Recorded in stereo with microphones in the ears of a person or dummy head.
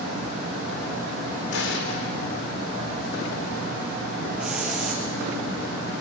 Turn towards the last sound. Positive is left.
turn(degrees=0)  # may be behind; listen again after turning